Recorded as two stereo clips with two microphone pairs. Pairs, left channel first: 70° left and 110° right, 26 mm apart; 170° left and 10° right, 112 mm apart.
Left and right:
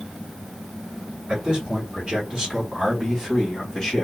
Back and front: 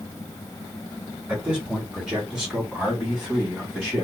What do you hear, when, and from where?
1.3 s a man speaking: 90° right, 2 m; by 4.0 s 85° left, 1.5 m